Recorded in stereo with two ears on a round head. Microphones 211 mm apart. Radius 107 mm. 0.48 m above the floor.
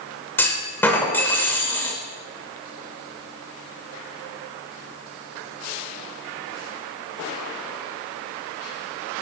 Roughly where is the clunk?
Centre.